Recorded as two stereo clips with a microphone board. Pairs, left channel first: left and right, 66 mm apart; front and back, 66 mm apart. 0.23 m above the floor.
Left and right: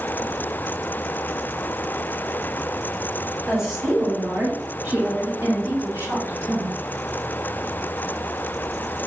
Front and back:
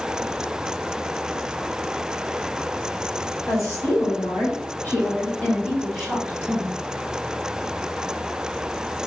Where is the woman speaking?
10° right, 1.6 m; by 6.7 s 95° right, 1.5 m.